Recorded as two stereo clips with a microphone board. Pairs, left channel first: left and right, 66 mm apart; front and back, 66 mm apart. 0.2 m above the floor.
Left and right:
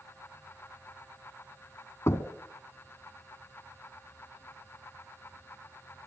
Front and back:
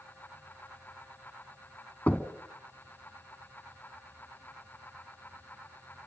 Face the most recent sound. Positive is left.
turn(degrees=65)